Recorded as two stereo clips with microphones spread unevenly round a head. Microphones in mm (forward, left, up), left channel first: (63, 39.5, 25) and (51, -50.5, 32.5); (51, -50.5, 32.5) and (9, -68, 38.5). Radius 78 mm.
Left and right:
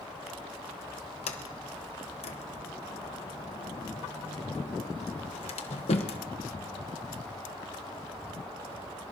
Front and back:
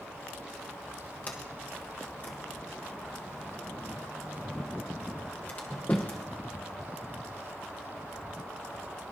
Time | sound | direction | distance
1.3 | a sliding door | 90° left | 1.1 m